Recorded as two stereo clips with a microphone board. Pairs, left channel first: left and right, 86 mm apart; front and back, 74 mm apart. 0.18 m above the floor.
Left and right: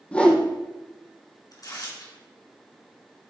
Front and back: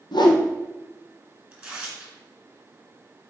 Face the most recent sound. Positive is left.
turn(degrees=105)